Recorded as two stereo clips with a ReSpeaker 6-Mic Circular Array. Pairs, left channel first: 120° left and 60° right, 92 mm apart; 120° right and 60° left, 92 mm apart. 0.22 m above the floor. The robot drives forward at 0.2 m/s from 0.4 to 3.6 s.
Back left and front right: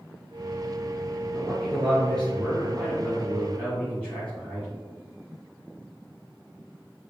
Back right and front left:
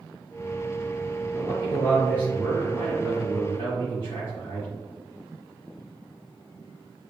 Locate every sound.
1.3 s a man speaking: 165° right, 1.7 m; by 4.7 s 170° right, 2 m